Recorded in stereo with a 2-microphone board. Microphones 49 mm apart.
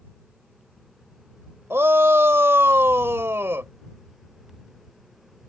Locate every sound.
1.7 s a shout: 55° right (ahead or behind)